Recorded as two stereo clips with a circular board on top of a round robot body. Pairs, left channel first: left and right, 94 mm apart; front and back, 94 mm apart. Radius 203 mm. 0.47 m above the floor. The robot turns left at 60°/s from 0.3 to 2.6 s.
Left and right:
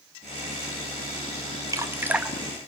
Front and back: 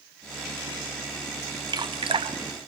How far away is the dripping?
About 1.9 m.